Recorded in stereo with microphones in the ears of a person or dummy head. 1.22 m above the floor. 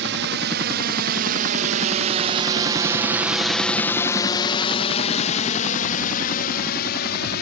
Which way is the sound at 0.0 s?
60° right (ahead or behind).